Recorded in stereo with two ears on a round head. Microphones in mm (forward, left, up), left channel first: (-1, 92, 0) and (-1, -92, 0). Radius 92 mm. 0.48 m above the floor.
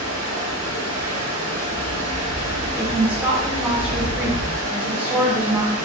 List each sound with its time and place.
0.0 s running water: 35° right (ahead or behind), 1.1 m
2.8 s a woman speaking: 5° right (ahead or behind), 1.0 m